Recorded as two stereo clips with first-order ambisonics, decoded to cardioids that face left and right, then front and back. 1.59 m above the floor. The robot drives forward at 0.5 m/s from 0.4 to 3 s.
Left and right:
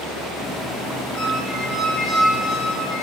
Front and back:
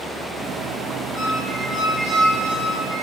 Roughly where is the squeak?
Left.